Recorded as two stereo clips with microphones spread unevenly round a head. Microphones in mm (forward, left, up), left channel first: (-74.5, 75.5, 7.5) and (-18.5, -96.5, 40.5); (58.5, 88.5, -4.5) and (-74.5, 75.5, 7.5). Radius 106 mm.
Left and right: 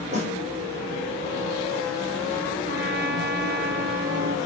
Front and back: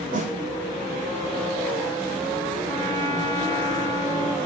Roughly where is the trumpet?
Right.